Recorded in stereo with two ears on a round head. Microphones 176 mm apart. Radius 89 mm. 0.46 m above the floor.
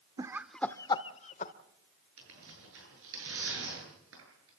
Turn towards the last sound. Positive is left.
turn(degrees=-70)  # may be behind; listen again after turning